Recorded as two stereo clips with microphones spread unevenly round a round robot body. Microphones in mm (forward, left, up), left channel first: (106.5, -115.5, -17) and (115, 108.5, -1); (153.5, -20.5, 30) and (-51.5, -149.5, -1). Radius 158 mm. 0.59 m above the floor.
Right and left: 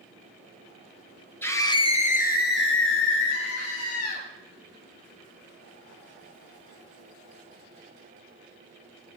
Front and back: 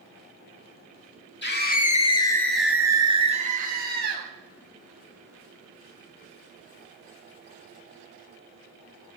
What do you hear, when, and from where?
1.4 s a scream: 15° right, 2.5 m; by 4.3 s 105° right, 4 m